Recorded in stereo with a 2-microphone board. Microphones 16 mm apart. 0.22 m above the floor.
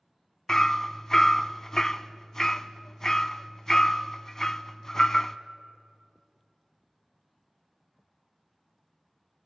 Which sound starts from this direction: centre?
Hammering, at 0.5 s.